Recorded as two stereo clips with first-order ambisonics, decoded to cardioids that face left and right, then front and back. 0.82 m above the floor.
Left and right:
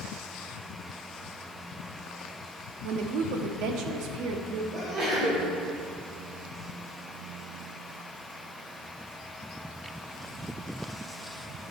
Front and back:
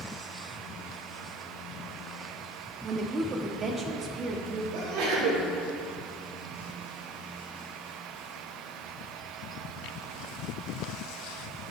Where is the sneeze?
155° right, 3 m.